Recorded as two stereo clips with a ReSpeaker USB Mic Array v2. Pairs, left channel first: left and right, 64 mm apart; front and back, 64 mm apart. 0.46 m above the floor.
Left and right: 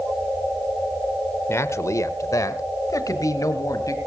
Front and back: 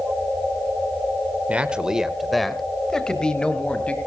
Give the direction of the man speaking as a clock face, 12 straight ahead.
8 o'clock.